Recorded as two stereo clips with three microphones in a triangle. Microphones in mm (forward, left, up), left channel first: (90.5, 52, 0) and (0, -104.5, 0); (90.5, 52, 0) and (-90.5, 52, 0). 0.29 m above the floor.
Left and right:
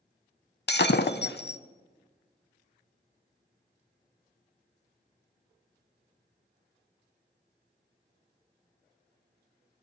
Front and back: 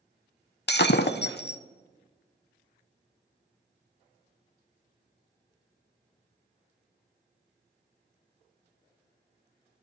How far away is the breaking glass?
About 0.5 m.